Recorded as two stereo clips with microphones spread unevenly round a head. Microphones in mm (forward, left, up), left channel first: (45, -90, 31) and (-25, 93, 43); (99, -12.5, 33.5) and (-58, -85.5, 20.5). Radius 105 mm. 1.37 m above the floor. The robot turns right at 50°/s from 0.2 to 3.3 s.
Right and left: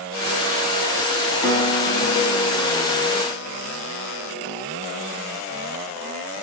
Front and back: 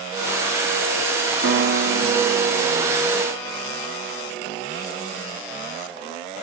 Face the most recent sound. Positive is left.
turn(degrees=-50)